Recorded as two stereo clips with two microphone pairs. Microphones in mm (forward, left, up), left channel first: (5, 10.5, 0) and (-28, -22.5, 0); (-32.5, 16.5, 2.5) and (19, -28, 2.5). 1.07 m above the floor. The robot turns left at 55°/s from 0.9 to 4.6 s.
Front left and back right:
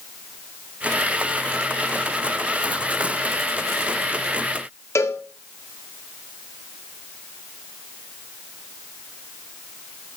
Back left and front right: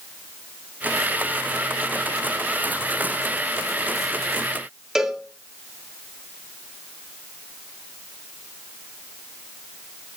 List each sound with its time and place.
5.0 s a cowbell: 40° left, 1.5 m